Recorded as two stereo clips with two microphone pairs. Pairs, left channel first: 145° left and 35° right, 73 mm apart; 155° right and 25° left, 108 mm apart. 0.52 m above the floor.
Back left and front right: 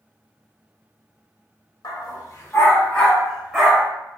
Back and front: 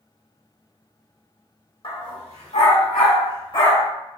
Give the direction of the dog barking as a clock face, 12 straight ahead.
7 o'clock.